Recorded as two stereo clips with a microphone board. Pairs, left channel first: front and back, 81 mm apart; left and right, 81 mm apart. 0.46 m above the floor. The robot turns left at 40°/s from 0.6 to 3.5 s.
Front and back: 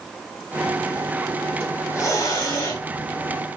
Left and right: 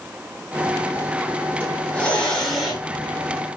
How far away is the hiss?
About 1.7 m.